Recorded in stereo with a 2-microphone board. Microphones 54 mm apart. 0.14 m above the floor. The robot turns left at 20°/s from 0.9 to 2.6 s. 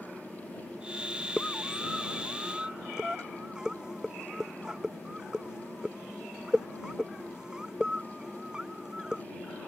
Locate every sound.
1.4 s a scream: 15° left (ahead or behind); by 9.2 s 10° right (ahead or behind)